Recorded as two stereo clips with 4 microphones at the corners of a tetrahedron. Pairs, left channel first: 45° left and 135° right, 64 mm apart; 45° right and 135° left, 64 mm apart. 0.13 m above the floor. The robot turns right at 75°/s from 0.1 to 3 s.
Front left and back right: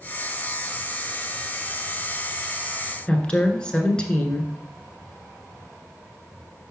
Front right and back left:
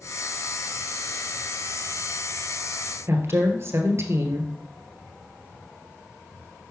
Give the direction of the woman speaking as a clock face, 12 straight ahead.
8 o'clock.